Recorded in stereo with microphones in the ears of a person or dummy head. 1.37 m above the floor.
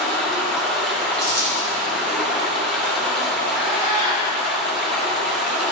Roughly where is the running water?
Centre.